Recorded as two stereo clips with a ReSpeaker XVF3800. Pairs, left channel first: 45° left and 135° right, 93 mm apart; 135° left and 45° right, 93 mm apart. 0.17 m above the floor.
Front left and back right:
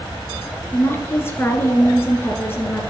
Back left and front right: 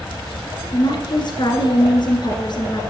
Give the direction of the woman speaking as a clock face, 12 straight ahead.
8 o'clock.